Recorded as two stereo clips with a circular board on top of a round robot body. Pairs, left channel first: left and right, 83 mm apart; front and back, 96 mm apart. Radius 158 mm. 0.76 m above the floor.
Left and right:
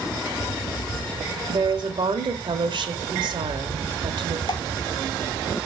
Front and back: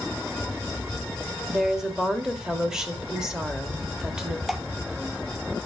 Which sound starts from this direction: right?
A woman speaking, at 1.5 s.